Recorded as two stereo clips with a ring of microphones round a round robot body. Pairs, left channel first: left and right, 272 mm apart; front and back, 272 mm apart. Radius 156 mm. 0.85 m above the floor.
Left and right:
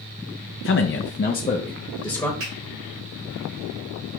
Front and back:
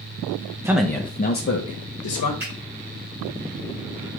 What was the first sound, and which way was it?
A man speaking, 105° left.